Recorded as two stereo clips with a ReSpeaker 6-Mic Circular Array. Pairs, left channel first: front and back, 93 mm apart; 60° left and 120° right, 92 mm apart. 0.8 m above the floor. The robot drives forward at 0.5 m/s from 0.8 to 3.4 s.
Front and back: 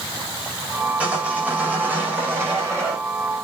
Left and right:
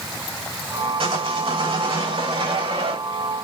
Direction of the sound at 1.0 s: 105° right.